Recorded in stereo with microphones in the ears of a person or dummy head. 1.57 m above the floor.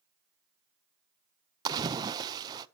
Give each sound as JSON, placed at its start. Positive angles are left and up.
{"t": 1.6, "sound": "a splash", "side_deg": -25, "distance_m": 0.5}